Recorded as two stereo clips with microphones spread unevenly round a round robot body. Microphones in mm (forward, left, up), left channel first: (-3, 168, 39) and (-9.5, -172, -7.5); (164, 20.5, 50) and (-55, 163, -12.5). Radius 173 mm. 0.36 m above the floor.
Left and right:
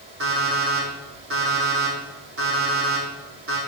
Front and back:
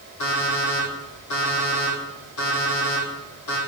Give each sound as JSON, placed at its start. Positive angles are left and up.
{"t": 0.2, "sound": "an alarm clock", "azimuth_deg": -35, "distance_m": 6.0}